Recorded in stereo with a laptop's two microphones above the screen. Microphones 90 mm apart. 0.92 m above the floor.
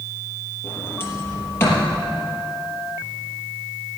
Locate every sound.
0.6 s a sliding door: 30° left (ahead or behind), 4 m